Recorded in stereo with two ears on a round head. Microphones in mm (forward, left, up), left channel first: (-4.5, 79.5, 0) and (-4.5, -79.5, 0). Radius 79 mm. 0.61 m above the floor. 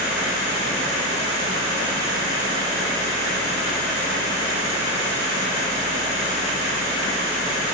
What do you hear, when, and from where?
Only background noise.